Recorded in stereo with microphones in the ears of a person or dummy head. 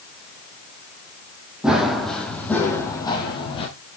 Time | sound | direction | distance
1.6 | running footsteps | centre (ahead or behind) | 3 m